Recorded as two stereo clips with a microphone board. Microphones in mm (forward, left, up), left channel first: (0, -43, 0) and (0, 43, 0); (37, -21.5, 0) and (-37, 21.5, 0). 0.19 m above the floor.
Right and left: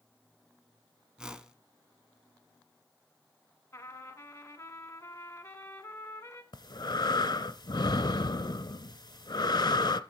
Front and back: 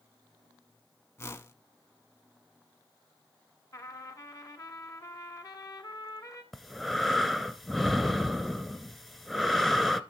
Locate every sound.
1.2 s a whoosh: 15° left, 0.6 m
3.7 s a trumpet: 45° right, 1.1 m
6.5 s breathing: 115° right, 0.5 m